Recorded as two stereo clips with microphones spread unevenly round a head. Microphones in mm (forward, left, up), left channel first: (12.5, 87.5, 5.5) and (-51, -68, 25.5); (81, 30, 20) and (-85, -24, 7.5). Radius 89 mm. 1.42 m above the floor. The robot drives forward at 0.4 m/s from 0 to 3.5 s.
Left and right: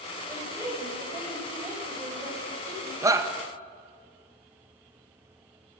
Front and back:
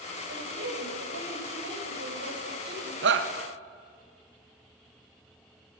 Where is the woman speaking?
175° left, 6 m.